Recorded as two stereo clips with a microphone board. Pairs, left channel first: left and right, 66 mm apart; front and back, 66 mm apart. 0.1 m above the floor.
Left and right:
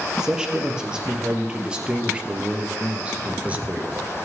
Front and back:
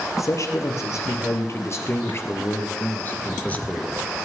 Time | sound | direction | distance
0.2 | a man speaking | 15° right | 3 m